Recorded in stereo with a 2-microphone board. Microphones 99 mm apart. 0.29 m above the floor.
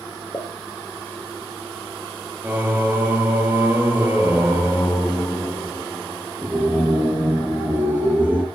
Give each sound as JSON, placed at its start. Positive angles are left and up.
{"t": 0.3, "sound": "a pop", "side_deg": 25, "distance_m": 1.9}
{"t": 2.4, "sound": "singing", "side_deg": -20, "distance_m": 4.0}